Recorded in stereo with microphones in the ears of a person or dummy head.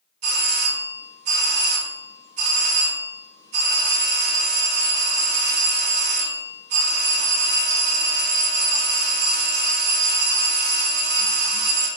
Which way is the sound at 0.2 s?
35° right (ahead or behind).